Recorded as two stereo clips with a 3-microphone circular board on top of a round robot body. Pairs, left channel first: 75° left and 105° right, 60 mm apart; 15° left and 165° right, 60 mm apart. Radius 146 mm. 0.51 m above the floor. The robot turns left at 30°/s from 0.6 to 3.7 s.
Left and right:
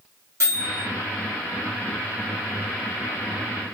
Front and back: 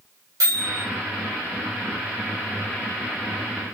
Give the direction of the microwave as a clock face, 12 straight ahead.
5 o'clock.